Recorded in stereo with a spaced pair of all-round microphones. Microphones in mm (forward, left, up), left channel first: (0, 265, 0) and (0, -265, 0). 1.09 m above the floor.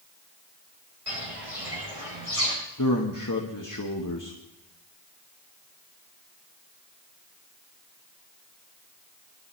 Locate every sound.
1.1 s footsteps: 70° right (ahead or behind), 5 m; by 2.5 s 75° right (ahead or behind), 6 m
2.8 s a man speaking: 35° left (ahead or behind), 1.4 m